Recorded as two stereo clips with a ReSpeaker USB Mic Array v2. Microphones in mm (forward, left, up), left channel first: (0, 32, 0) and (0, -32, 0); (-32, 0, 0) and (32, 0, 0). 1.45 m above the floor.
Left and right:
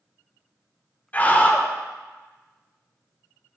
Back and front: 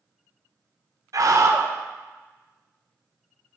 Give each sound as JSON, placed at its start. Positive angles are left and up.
{"t": 1.1, "sound": "a scream", "azimuth_deg": 30, "distance_m": 1.1}